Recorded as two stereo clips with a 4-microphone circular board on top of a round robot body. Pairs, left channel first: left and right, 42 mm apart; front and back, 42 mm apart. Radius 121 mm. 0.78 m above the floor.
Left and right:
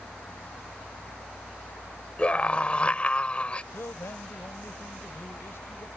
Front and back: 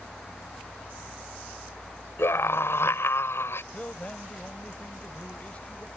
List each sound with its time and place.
2.2 s a scream: 25° left
3.7 s a man speaking: 60° left